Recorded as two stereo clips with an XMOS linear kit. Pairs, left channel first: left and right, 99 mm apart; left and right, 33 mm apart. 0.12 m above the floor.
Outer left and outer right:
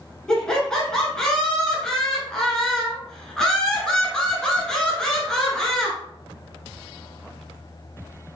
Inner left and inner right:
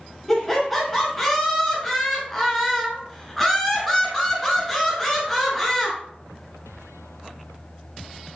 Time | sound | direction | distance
0.3 | laughter | 5° left (ahead or behind) | 1.5 m